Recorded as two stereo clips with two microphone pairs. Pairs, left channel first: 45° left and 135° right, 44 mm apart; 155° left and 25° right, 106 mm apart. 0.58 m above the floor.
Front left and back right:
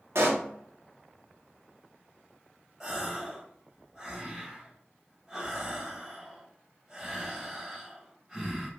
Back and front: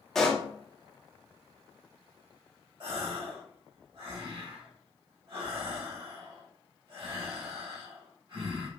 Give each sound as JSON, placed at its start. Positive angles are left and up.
{"t": 0.1, "sound": "a pop", "azimuth_deg": -120, "distance_m": 0.8}
{"t": 2.8, "sound": "a gasp", "azimuth_deg": -60, "distance_m": 1.8}